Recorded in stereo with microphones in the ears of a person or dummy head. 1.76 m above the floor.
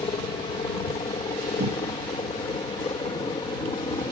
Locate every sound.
0.0 s a helicopter: 25° left (ahead or behind)
1.6 s a cupboard door: 55° right (ahead or behind)